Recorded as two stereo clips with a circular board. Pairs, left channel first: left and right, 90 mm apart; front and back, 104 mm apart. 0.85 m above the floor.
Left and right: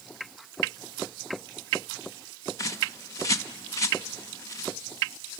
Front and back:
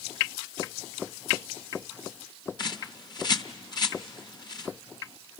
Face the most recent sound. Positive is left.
turn(degrees=40)